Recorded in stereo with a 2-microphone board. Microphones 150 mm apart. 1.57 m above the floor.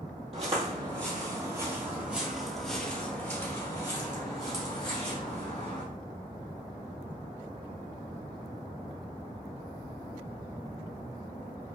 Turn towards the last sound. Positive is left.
turn(degrees=45)  # may be behind; listen again after turning